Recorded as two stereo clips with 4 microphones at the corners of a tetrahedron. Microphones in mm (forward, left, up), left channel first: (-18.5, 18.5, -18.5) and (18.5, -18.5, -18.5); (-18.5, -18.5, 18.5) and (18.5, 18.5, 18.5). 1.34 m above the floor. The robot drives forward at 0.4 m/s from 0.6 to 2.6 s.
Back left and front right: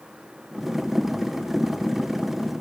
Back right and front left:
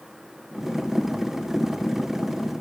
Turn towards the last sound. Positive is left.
No sound to turn to.